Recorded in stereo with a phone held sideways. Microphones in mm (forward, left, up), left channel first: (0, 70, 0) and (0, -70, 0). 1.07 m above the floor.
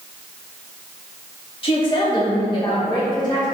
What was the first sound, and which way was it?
A woman speaking, 40° left (ahead or behind).